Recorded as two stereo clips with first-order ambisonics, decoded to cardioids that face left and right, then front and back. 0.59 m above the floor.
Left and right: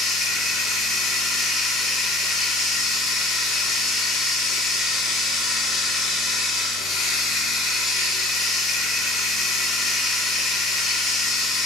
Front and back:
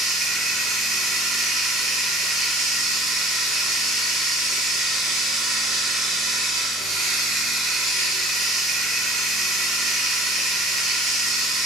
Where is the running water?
145° left, 0.8 m.